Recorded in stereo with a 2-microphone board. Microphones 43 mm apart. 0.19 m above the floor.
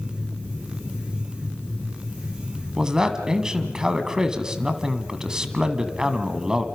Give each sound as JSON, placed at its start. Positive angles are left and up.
{"t": 2.8, "sound": "a man speaking", "side_deg": -15, "distance_m": 1.5}